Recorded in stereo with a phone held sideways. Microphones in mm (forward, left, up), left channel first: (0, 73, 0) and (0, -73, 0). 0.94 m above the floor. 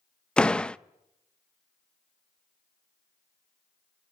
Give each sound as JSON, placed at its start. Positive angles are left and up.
{"t": 0.4, "sound": "a door slam", "side_deg": 5, "distance_m": 0.6}